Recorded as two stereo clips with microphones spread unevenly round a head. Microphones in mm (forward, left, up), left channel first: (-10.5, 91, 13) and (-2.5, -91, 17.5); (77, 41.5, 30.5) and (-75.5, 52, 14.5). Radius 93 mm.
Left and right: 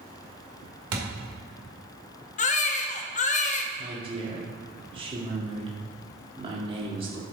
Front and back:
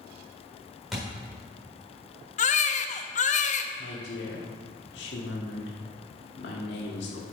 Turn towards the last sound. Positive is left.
turn(degrees=-25)